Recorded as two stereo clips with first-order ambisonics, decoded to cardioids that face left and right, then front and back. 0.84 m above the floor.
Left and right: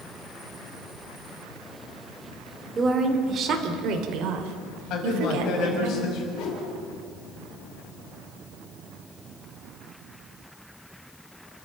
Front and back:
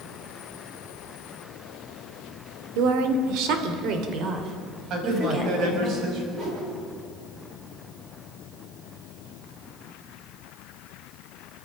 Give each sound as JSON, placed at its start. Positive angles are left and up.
{"t": 2.8, "sound": "a woman speaking", "azimuth_deg": -165, "distance_m": 2.5}
{"t": 4.9, "sound": "a man speaking", "azimuth_deg": 135, "distance_m": 6.0}
{"t": 6.3, "sound": "a whoosh", "azimuth_deg": 120, "distance_m": 7.5}